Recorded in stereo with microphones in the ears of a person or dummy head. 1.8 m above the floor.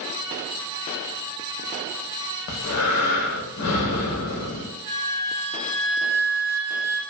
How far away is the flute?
About 1.2 m.